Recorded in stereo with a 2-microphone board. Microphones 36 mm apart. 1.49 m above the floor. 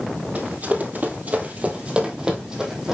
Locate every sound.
0.3 s running footsteps: 50° right (ahead or behind), 2.5 m; by 3.0 s 15° right (ahead or behind), 3.5 m